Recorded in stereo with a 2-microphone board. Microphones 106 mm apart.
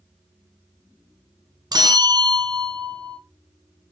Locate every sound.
1.7 s a bell: 40° right (ahead or behind), 1.2 m